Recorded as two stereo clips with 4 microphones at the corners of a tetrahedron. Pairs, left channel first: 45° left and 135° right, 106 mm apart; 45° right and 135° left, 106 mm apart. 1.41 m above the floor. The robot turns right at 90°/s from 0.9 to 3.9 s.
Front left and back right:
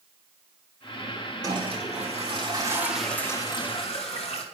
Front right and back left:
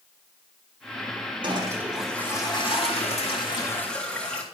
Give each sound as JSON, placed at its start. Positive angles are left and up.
{"t": 1.4, "sound": "a toilet flushing", "azimuth_deg": 175, "distance_m": 3.0}